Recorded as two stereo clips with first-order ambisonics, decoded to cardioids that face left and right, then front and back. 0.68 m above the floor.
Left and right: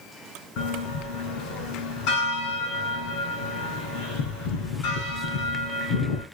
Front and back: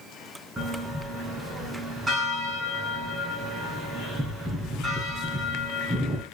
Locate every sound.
0.6 s a bell: 105° left, 5.5 m